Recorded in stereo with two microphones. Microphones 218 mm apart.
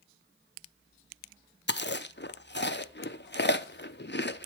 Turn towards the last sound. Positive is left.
turn(degrees=50)  # may be behind; listen again after turning